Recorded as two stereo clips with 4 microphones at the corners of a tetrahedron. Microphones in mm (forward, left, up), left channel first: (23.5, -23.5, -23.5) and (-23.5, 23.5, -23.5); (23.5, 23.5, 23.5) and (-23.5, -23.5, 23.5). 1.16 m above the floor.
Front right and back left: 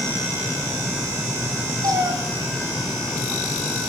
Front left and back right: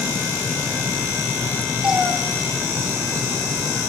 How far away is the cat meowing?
About 2.5 m.